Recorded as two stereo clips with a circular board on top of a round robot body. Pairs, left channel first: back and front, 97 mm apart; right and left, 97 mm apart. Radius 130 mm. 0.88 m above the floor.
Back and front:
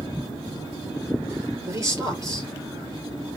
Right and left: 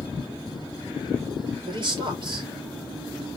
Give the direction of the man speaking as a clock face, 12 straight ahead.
10 o'clock.